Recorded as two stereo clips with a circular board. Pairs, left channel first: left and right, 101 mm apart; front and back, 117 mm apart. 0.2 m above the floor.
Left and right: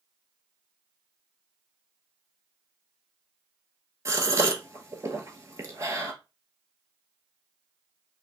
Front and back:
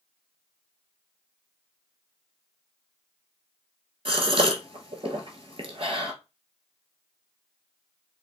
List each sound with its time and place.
4.0 s a gasp: 145° right, 0.8 m